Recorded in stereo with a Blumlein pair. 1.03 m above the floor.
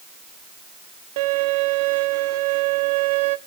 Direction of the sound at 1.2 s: 50° right.